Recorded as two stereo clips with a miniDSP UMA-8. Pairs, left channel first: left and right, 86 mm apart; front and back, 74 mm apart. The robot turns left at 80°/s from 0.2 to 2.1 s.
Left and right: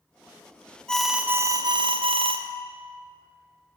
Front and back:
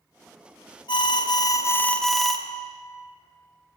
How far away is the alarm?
About 0.6 m.